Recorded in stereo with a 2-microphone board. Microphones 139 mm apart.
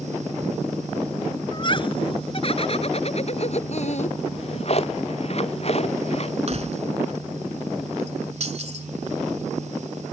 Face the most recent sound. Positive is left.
turn(degrees=-50)  # may be behind; listen again after turning